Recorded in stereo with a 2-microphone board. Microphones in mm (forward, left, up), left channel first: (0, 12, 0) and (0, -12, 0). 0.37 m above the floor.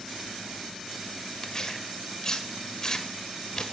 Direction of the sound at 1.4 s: 25° left (ahead or behind).